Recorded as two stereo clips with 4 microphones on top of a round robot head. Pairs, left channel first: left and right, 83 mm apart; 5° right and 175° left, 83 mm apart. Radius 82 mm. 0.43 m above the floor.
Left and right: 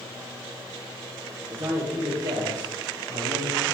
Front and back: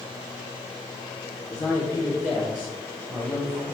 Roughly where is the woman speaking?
Ahead right.